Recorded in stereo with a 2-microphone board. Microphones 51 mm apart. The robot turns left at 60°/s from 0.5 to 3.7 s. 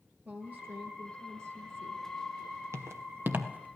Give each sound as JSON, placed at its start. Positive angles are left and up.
{"t": 0.2, "sound": "a woman speaking", "azimuth_deg": -40, "distance_m": 3.5}
{"t": 2.7, "sound": "footsteps", "side_deg": -70, "distance_m": 1.8}